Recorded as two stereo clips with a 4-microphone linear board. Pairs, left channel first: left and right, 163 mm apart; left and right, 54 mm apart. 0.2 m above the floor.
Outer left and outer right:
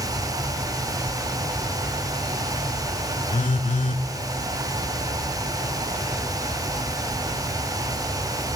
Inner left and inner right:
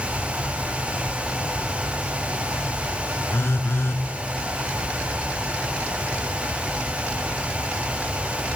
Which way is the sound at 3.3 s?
55° left (ahead or behind).